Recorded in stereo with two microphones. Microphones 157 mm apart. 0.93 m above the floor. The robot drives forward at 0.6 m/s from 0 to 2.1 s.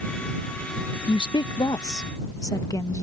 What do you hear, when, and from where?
1.1 s a woman speaking: 30° left (ahead or behind); by 3.0 s 20° left (ahead or behind)